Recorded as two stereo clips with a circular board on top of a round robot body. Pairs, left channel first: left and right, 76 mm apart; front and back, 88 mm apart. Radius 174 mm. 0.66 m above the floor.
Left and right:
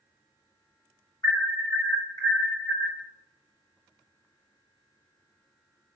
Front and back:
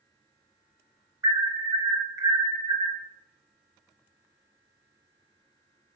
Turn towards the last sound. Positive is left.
turn(degrees=125)